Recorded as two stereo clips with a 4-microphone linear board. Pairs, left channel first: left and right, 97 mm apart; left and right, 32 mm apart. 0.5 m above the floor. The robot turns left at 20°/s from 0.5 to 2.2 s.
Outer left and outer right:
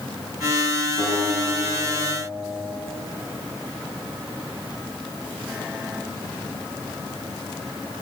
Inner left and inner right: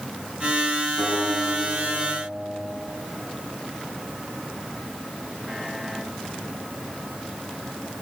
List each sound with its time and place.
1.0 s a guitar: 45° left (ahead or behind), 4.5 m; by 2.7 s 25° left (ahead or behind), 4.5 m